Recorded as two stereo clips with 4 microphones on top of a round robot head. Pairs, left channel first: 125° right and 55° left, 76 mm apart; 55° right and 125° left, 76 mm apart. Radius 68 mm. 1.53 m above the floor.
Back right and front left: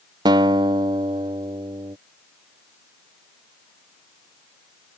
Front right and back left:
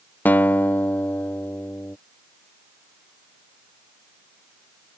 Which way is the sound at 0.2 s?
15° left.